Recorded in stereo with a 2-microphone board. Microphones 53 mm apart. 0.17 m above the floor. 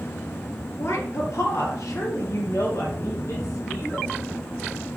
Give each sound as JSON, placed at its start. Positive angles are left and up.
{"t": 0.8, "sound": "a woman speaking", "side_deg": 60, "distance_m": 2.5}